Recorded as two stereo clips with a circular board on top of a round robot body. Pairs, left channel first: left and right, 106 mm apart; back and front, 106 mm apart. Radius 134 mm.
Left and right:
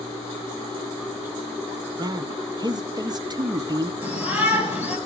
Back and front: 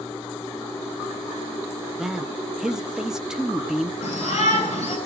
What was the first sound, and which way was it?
A man speaking, 80° right.